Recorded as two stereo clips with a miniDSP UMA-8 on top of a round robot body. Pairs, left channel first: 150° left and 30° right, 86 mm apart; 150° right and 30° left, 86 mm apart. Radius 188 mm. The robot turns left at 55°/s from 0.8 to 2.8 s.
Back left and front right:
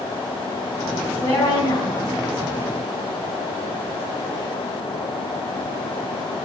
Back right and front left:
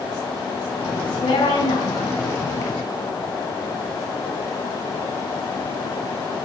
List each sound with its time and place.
1.0 s a woman speaking: 130° right, 5 m; by 2.2 s 160° left, 5 m